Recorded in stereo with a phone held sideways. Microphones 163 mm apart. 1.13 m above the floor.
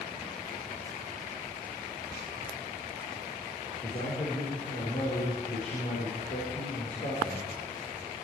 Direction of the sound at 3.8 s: 60° left (ahead or behind).